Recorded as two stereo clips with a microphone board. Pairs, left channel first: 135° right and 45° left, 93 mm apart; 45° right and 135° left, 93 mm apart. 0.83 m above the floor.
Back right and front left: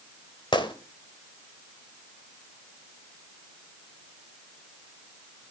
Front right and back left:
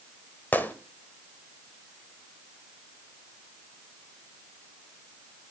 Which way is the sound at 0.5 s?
115° right.